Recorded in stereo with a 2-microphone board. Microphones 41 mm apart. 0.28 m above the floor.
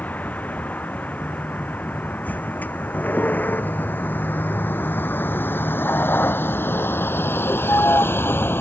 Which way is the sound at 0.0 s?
45° left (ahead or behind).